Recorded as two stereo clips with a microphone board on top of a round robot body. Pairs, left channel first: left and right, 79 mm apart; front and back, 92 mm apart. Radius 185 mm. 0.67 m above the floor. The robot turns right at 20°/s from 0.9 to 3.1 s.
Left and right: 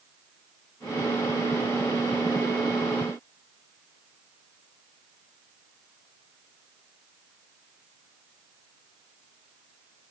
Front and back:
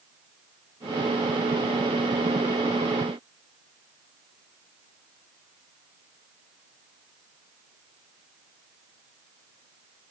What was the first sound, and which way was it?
Only background noise.